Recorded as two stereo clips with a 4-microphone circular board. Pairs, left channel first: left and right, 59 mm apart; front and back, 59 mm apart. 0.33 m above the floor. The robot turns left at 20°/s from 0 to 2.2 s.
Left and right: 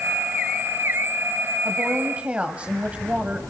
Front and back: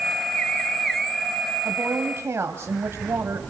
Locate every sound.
1.6 s a woman speaking: 140° right, 1.5 m; by 3.4 s 150° right, 1.5 m